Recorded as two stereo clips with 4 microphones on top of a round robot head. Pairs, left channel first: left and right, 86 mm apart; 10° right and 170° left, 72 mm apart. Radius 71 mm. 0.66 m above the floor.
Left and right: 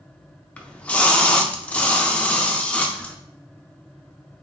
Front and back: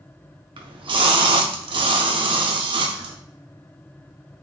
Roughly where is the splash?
Behind.